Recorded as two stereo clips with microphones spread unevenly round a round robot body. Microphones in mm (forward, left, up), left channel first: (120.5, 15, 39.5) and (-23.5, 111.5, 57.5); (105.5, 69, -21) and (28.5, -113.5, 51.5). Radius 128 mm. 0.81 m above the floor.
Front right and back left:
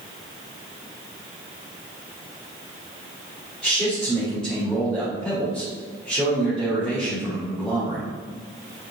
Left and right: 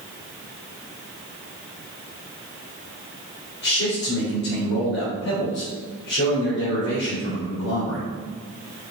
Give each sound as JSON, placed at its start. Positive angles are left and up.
{"t": 3.6, "sound": "a man speaking", "azimuth_deg": 50, "distance_m": 4.0}